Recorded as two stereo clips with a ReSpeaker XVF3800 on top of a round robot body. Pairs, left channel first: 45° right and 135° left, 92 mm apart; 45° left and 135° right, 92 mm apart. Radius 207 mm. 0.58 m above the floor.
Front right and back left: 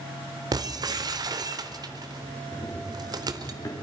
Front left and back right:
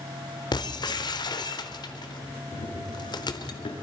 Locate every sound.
0.5 s breaking glass: 85° left, 1.1 m
2.5 s running footsteps: 20° left, 3.5 m; by 3.7 s 10° left, 4 m